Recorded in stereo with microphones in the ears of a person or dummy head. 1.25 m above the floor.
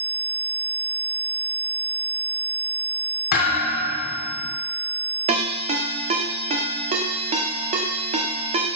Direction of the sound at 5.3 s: 35° right (ahead or behind).